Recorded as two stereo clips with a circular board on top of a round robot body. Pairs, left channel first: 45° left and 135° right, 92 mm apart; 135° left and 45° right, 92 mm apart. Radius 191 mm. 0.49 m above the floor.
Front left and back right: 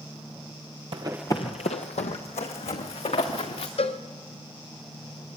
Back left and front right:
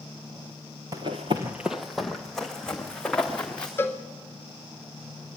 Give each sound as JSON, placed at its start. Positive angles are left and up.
{"t": 0.9, "sound": "running footsteps", "azimuth_deg": -100, "distance_m": 0.7}
{"t": 3.8, "sound": "a cowbell", "azimuth_deg": 65, "distance_m": 0.8}